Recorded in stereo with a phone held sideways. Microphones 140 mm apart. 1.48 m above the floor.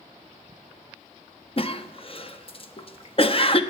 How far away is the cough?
About 0.7 m.